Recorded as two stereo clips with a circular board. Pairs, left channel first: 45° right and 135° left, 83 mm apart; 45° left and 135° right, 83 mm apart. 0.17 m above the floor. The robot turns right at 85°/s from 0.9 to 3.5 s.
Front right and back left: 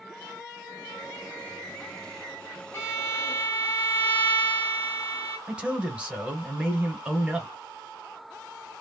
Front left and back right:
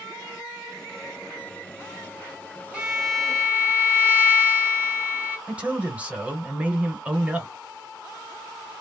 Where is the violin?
65° right, 1.5 m; by 5.4 s straight ahead, 1.5 m.